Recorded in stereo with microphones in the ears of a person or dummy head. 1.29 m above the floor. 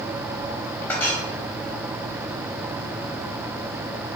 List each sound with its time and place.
0.9 s a clink: 10° left (ahead or behind), 6 m